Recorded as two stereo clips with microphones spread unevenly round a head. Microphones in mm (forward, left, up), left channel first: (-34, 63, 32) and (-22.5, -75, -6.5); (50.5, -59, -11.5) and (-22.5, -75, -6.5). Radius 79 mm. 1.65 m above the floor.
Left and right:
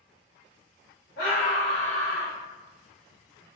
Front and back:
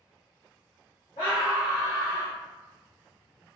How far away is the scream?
About 1.7 m.